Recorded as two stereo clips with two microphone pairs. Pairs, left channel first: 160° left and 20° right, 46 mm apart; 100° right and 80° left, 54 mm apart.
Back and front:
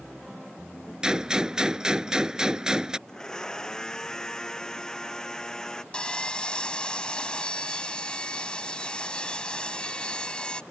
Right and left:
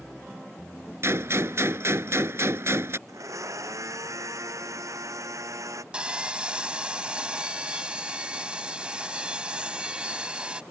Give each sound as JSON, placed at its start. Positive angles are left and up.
{"t": 1.0, "sound": "a gunshot", "azimuth_deg": 50}
{"t": 3.1, "sound": "a blender", "azimuth_deg": 85}
{"t": 5.9, "sound": "sawing", "azimuth_deg": 125}